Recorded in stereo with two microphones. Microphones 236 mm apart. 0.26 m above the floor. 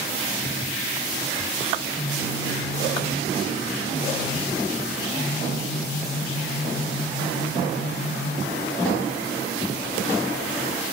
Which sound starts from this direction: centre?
A phone buzzing, at 1.8 s.